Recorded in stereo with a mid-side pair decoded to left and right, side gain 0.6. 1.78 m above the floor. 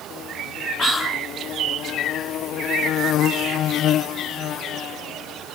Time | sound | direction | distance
0.8 | whispering | 25° left | 4 m